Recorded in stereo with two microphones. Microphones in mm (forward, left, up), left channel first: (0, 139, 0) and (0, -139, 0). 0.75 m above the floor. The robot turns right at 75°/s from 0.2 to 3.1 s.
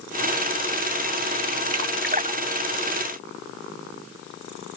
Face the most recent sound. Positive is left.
turn(degrees=35)  # may be behind; listen again after turning